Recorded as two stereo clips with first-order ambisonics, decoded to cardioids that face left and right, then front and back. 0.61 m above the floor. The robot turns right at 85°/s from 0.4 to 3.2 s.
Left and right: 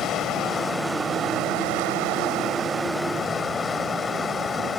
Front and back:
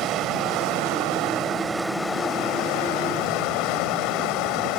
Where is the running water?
140° left; by 4.8 s 20° left.